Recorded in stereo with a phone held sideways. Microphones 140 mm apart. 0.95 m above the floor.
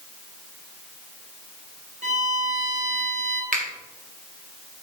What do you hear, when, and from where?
2.0 s a violin: 55° right (ahead or behind), 1.2 m
3.5 s a finger snap: 70° right (ahead or behind), 1.9 m